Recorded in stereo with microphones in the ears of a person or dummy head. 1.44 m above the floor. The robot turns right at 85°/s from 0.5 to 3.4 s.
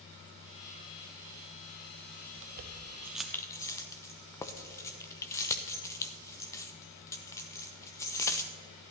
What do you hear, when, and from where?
2.4 s keys jangling: 60° right (ahead or behind), 0.7 m; by 8.5 s 15° left (ahead or behind), 0.7 m